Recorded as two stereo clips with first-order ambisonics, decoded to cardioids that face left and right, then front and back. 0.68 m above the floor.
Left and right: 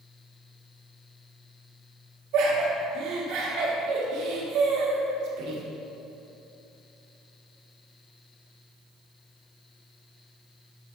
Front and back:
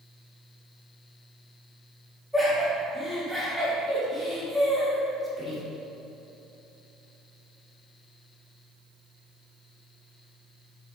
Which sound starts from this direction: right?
Laughter, at 2.3 s.